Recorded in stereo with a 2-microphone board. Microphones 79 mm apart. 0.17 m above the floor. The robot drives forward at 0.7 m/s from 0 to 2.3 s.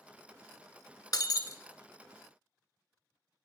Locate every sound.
1.1 s breaking glass: 60° left (ahead or behind), 0.6 m; by 1.6 s 45° left (ahead or behind), 0.8 m